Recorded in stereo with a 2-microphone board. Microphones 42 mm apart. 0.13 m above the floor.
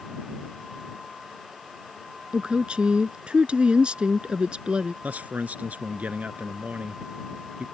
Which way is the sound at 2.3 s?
25° right (ahead or behind).